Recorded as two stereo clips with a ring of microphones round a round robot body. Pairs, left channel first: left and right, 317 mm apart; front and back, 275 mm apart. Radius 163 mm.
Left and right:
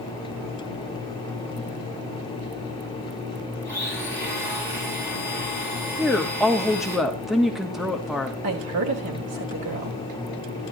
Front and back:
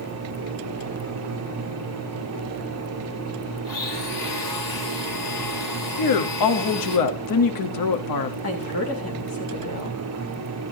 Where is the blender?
5° right, 5.5 m.